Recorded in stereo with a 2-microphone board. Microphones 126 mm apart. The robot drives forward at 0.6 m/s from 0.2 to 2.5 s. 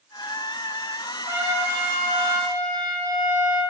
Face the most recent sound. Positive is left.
turn(degrees=-30)  # may be behind; listen again after turning